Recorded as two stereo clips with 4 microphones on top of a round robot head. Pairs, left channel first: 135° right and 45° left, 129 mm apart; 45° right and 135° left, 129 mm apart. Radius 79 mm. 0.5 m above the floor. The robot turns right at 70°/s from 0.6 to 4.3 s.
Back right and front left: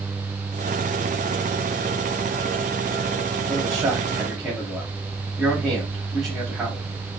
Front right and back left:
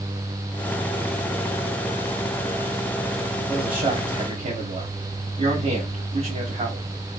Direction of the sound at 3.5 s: 85° left.